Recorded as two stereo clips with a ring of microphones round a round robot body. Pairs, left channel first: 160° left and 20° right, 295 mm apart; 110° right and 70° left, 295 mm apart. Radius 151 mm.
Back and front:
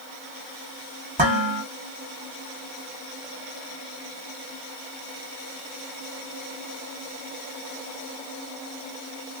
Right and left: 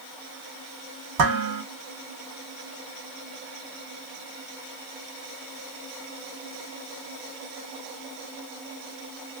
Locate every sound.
1.2 s dishes clattering: 45° left, 1.7 m